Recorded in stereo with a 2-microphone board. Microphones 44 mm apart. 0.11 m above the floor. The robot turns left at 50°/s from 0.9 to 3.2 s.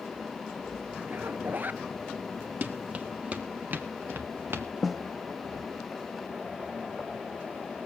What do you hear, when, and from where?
1.1 s a zipper: 65° right, 0.7 m; by 1.8 s 105° right, 0.7 m
2.6 s running footsteps: 45° right (ahead or behind), 1.8 m; by 4.7 s 70° right (ahead or behind), 2 m
4.8 s a snare drum: centre (ahead or behind), 1.3 m